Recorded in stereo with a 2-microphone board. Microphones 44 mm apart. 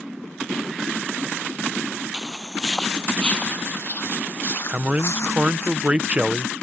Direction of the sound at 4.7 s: 25° right (ahead or behind).